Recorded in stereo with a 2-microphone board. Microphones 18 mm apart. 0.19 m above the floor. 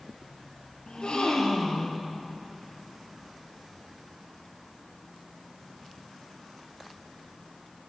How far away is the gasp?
About 4 m.